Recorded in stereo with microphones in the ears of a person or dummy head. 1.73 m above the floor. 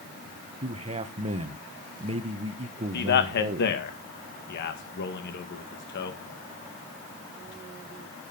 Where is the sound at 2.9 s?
60° left (ahead or behind), 2 m.